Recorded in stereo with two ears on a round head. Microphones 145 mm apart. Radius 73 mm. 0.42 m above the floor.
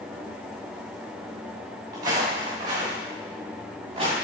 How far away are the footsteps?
About 3 m.